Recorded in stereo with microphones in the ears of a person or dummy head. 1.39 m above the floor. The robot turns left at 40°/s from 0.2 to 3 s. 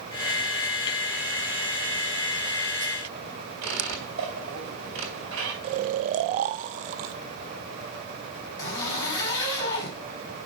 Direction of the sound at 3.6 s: 65° right (ahead or behind).